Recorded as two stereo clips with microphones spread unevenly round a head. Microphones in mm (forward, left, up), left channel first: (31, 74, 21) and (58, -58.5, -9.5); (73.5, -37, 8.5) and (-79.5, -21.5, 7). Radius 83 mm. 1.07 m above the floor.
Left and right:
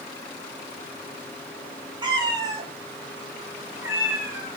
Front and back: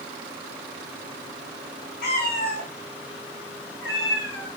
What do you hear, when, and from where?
2.0 s a cat meowing: 20° right, 1.8 m; by 4.5 s straight ahead, 4 m